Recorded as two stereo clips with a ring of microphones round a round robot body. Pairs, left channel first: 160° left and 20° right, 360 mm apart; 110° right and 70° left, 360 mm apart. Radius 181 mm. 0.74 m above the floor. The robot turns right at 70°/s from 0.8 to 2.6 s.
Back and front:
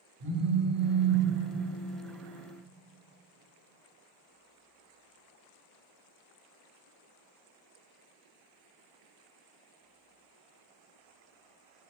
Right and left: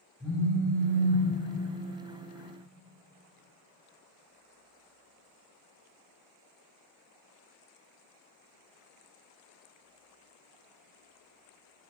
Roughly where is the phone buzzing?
Ahead.